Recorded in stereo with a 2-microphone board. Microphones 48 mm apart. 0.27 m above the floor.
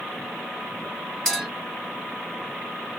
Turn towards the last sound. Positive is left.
turn(degrees=15)  # may be behind; listen again after turning